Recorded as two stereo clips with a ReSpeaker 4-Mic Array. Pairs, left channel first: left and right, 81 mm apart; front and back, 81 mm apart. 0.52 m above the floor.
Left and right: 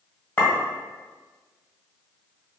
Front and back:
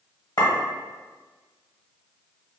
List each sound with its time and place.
0.4 s a clink: 25° left, 1.2 m